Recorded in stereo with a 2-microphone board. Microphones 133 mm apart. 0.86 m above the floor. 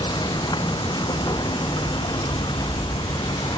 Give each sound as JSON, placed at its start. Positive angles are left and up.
{"t": 0.0, "sound": "running water", "side_deg": 35}